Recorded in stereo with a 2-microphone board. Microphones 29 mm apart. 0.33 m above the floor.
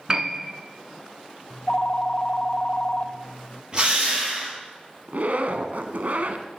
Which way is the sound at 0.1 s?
30° right (ahead or behind).